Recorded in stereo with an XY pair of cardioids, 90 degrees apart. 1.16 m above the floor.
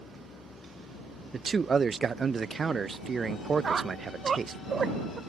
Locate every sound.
0.0 s a vehicle: 55° left
1.3 s a man speaking: 35° right
3.6 s a squeak: 40° right